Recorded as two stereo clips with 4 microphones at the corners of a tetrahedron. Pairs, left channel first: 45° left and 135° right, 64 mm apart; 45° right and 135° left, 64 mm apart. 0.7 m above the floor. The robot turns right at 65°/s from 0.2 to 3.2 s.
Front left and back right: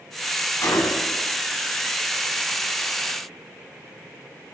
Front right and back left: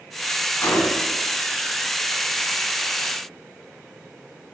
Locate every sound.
0.6 s a gunshot: 5° left, 3 m; by 1.2 s 45° left, 3 m